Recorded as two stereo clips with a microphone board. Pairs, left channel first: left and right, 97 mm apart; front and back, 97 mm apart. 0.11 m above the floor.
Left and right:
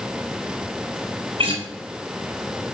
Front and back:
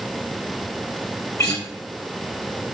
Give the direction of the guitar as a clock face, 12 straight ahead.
2 o'clock.